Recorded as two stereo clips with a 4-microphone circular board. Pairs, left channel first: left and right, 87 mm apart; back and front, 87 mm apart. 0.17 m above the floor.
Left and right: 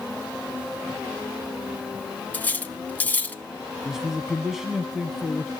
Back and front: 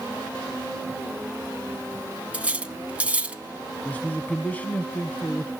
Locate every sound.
2.3 s cutlery clinking: 50° left, 0.7 m
3.9 s a man speaking: 170° right, 1.1 m